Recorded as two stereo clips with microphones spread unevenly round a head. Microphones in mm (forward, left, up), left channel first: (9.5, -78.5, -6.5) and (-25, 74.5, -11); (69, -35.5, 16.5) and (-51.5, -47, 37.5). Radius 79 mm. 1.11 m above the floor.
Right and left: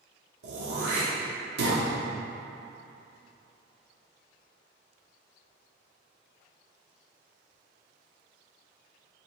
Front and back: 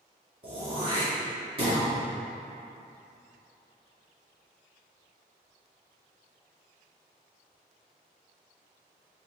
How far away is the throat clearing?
About 2 m.